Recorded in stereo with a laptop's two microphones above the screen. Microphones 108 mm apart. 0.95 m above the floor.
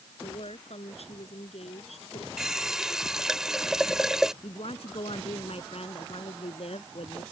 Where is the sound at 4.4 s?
70° left (ahead or behind).